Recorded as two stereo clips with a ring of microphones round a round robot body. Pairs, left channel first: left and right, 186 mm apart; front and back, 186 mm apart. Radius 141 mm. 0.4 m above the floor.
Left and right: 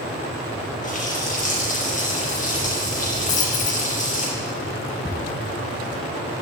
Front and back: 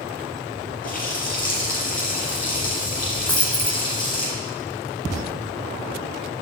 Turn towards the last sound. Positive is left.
turn(degrees=80)